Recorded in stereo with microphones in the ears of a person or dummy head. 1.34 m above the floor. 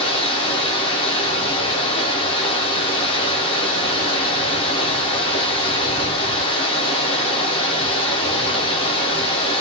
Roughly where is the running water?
Left.